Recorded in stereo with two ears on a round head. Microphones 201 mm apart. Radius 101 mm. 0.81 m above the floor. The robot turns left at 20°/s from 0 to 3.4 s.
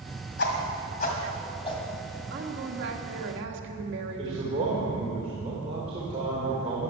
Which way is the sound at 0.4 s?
50° left (ahead or behind).